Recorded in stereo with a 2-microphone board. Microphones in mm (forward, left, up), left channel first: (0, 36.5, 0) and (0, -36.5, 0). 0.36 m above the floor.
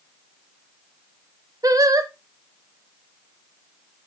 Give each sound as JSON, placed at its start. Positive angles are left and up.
{"t": 1.6, "sound": "singing", "side_deg": -55, "distance_m": 0.5}